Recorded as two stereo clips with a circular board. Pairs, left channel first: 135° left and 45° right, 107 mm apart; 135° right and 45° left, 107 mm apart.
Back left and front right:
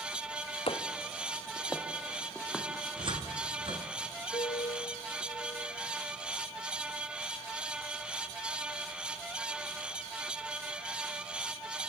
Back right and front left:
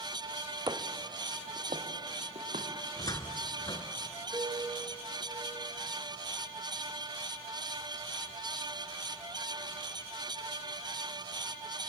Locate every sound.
0.7 s footsteps: 100° left, 1.3 m; by 2.6 s 45° left, 3.5 m
3.0 s a cupboard door: 80° right, 1.4 m
4.3 s a piano: 110° left, 4 m